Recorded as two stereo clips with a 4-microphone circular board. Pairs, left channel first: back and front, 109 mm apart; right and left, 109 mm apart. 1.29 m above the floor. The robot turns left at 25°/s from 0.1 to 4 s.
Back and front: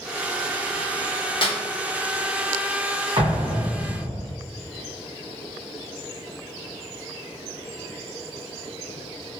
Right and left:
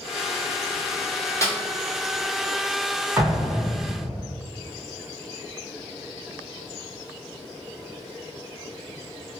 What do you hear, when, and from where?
1.4 s a snare drum: 150° right, 0.9 m; by 1.6 s 155° right, 0.9 m
3.2 s an explosion: 30° left, 0.8 m; by 4.3 s 10° left, 0.8 m